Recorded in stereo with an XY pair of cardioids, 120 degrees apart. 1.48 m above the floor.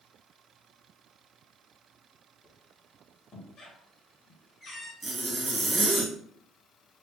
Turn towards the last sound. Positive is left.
turn(degrees=-20)